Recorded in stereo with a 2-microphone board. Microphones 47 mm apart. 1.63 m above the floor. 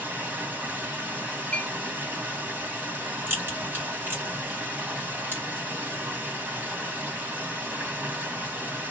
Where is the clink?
20° left (ahead or behind), 0.8 m.